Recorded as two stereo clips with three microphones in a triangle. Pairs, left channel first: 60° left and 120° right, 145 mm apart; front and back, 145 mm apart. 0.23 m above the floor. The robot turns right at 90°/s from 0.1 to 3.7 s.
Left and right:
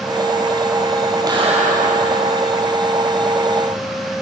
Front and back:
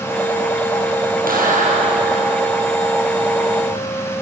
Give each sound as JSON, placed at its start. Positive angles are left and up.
{"t": 1.3, "sound": "a clap", "azimuth_deg": 180, "distance_m": 6.0}